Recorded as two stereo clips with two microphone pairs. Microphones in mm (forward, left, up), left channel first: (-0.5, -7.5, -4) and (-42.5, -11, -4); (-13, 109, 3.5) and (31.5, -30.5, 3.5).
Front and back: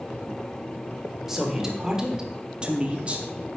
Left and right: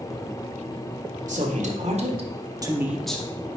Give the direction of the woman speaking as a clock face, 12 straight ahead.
3 o'clock.